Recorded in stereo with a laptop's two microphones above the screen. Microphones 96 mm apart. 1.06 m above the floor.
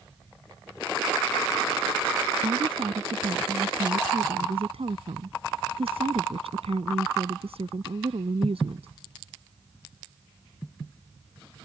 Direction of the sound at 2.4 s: 85° right.